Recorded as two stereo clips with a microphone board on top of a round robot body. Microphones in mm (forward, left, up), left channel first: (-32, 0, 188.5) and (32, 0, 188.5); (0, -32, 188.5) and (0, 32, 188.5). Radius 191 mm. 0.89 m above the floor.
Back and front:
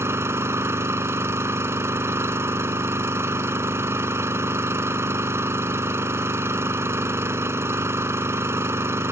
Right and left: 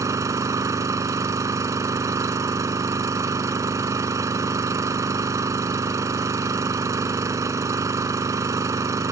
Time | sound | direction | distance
0.0 | an engine running | 50° left | ?